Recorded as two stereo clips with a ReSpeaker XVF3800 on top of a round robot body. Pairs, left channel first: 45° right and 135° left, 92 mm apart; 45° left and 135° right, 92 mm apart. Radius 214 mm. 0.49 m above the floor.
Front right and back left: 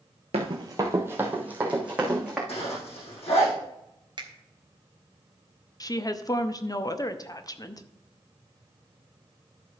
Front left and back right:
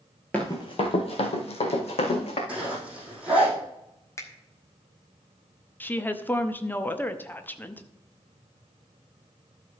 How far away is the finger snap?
About 1.8 m.